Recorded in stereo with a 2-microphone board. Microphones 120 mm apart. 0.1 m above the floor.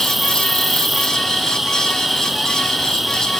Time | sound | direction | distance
0.0 | an insect | centre (ahead or behind) | ?